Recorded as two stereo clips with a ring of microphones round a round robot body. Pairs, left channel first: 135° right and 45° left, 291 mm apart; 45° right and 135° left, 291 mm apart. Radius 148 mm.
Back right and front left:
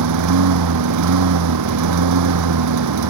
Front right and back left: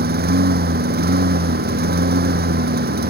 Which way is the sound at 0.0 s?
75° left.